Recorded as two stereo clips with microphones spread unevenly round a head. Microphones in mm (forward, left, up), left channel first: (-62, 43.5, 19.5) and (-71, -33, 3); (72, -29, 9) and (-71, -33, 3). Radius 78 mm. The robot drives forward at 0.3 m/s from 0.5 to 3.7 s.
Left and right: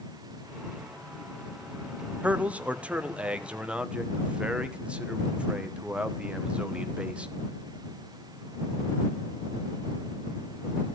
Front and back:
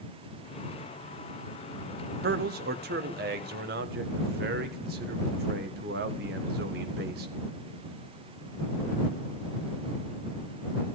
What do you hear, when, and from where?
2.2 s a man speaking: 170° right, 1.0 m